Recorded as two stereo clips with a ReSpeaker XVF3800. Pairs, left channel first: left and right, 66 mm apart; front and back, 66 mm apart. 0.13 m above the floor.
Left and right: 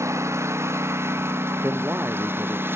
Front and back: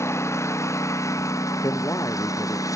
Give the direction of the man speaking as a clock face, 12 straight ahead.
1 o'clock.